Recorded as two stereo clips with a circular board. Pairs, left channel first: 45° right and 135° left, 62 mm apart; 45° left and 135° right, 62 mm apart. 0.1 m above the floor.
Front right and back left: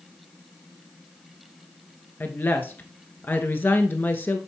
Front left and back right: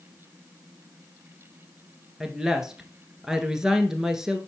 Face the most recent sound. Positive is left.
turn(degrees=-60)